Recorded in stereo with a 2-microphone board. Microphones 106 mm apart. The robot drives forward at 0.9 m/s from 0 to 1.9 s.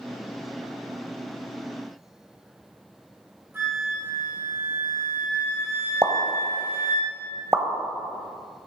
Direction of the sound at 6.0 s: 35° right (ahead or behind).